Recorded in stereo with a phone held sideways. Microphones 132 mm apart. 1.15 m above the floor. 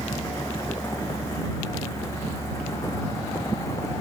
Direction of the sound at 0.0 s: 20° left (ahead or behind).